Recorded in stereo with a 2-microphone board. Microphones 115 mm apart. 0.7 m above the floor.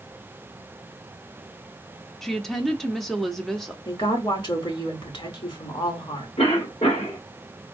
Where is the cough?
75° left (ahead or behind), 2 m.